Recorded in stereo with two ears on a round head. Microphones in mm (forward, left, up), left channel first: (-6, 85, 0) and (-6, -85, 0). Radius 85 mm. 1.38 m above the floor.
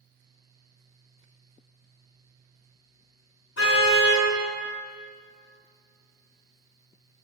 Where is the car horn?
70° left (ahead or behind), 6 m.